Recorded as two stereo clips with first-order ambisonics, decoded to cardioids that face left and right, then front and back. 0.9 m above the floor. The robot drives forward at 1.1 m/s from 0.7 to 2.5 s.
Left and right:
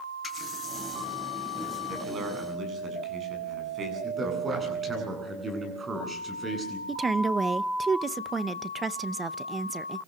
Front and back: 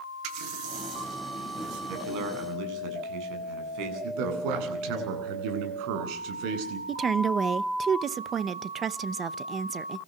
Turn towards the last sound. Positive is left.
turn(degrees=-145)